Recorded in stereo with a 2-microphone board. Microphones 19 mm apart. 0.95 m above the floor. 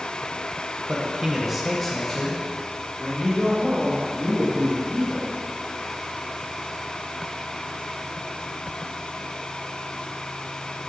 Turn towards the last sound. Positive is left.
turn(degrees=60)  # may be behind; listen again after turning